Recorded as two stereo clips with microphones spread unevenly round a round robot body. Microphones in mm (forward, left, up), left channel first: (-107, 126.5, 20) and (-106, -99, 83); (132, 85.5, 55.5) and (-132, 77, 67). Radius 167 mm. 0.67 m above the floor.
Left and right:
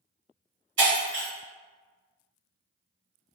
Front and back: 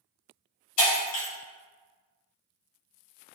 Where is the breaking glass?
35° right, 1.7 m.